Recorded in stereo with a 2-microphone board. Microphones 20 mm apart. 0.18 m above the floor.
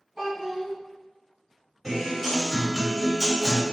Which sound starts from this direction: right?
A child speaking, at 0.2 s.